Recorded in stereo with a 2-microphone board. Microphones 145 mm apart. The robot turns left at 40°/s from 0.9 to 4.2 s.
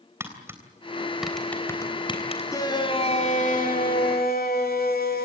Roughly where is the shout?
Behind.